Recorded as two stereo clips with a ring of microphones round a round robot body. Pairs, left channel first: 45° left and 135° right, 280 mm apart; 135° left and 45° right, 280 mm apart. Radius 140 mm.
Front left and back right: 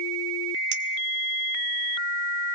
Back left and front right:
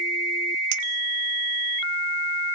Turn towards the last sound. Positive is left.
turn(degrees=-80)